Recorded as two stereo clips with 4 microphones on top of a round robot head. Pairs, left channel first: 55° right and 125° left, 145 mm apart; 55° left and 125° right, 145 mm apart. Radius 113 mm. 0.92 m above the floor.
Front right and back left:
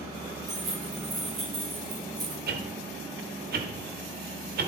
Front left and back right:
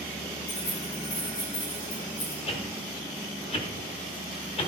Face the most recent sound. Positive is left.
turn(degrees=110)